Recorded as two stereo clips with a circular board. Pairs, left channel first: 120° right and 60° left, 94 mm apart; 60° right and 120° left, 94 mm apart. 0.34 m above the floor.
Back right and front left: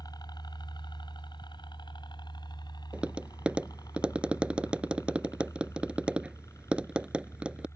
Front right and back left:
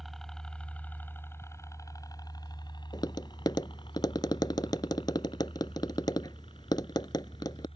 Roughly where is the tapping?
Ahead.